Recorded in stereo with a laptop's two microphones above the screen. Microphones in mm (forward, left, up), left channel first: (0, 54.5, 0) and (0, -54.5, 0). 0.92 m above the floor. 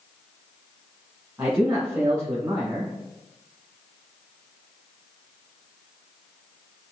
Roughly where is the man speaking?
Right.